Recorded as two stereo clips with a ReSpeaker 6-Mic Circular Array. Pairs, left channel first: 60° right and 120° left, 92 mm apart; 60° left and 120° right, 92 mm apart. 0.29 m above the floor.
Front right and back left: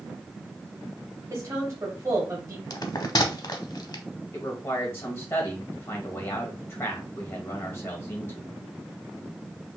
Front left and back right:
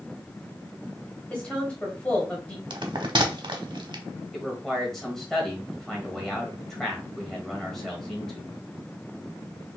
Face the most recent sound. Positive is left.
turn(degrees=-25)